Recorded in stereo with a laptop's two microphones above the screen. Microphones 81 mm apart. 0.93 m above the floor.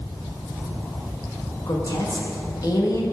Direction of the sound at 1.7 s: 50° left (ahead or behind).